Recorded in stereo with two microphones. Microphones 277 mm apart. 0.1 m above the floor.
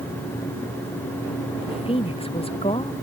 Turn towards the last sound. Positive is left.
turn(degrees=20)  # may be behind; listen again after turning